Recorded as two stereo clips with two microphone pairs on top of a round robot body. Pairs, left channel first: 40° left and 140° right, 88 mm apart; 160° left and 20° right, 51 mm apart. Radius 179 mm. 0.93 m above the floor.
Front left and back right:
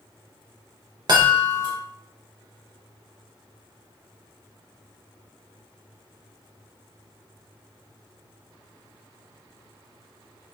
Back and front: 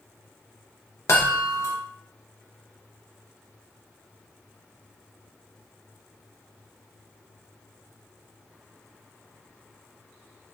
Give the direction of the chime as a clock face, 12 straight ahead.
6 o'clock.